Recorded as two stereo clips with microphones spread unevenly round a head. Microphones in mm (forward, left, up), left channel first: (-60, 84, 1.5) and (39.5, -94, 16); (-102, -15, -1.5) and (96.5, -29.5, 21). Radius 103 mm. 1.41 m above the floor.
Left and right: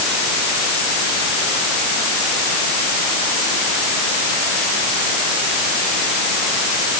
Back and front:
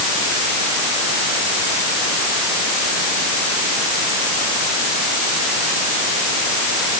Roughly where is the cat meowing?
I don't hear a cat meowing.